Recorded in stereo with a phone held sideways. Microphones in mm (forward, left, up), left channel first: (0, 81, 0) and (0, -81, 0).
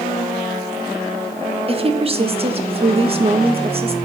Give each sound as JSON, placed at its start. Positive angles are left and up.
{"t": 1.7, "sound": "a woman speaking", "side_deg": -35, "distance_m": 1.4}